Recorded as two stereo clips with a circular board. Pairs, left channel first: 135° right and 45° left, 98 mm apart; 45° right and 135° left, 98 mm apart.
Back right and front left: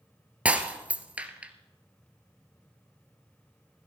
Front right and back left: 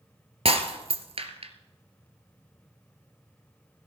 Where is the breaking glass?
120° left, 1.5 m.